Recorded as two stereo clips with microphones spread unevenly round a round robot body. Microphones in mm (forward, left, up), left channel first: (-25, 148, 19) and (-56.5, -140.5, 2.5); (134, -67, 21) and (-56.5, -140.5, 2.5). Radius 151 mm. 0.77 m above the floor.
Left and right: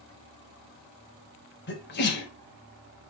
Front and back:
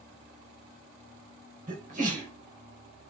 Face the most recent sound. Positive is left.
turn(degrees=140)